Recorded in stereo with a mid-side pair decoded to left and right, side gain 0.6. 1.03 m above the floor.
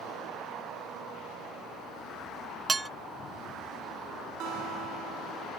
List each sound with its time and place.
2.7 s dishes clattering: 15° right
4.4 s a guitar: 65° right